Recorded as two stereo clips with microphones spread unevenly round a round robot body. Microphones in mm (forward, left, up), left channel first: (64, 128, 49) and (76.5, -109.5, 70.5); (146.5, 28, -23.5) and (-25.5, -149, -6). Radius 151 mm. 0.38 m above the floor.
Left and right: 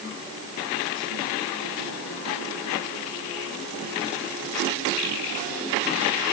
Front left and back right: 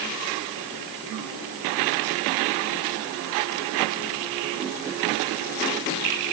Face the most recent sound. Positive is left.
No sound to turn to.